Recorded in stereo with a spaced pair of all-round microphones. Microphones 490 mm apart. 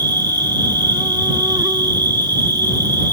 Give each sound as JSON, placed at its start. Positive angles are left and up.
{"t": 0.0, "sound": "an insect", "side_deg": -10}